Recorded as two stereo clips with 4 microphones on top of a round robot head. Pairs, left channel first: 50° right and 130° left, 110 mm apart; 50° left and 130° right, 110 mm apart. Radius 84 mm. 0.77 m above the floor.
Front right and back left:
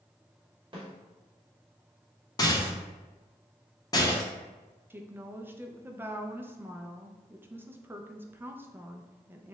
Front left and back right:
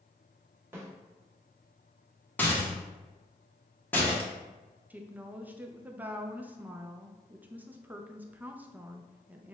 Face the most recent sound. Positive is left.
turn(degrees=175)